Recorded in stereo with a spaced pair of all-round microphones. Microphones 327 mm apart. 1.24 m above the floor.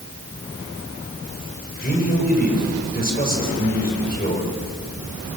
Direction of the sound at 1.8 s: 25° left (ahead or behind).